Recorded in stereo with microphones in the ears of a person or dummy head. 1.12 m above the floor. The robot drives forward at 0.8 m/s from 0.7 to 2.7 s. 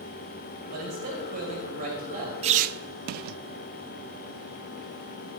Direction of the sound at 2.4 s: 35° right (ahead or behind).